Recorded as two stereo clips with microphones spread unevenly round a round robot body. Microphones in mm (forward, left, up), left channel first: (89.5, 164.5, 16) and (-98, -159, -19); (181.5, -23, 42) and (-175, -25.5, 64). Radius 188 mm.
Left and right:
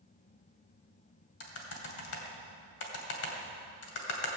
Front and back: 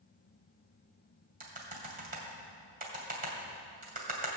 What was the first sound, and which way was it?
Typing on a keyboard, 110° left.